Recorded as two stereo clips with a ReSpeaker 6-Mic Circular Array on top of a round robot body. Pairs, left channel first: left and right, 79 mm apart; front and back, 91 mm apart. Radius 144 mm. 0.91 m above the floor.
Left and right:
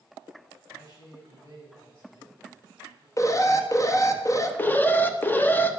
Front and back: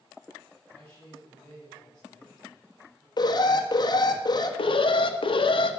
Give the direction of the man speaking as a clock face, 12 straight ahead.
9 o'clock.